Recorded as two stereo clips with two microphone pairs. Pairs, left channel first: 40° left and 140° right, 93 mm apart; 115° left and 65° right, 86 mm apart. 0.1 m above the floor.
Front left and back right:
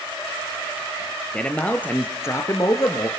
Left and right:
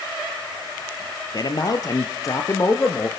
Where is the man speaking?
120° left, 2.5 m; by 3.1 s 65° left, 2.5 m.